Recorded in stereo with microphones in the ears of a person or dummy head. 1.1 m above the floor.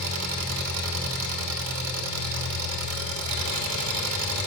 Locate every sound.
0.0 s an engine running: 80° right, 1.3 m